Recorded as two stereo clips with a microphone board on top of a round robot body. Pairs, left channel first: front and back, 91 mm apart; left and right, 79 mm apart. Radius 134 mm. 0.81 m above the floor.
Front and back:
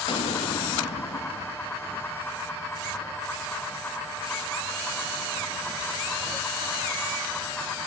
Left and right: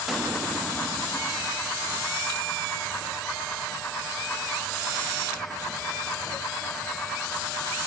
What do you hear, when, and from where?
0.1 s an explosion: 5° right, 1.5 m